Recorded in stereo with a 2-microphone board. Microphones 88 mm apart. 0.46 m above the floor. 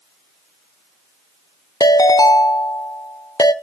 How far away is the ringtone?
About 0.7 m.